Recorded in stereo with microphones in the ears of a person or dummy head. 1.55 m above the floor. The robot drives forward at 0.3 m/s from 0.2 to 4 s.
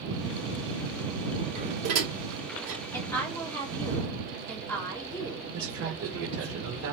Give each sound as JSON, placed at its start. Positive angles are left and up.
{"t": 1.6, "sound": "dishes clattering", "side_deg": -70, "distance_m": 1.9}
{"t": 2.9, "sound": "a woman speaking", "side_deg": 15, "distance_m": 1.8}
{"t": 5.5, "sound": "a man speaking", "side_deg": -65, "distance_m": 1.2}